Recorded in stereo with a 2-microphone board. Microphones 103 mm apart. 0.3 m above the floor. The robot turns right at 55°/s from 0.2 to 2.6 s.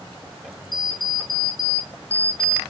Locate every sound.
0.7 s an alarm clock: 75° left, 0.6 m; by 2.6 s straight behind, 0.6 m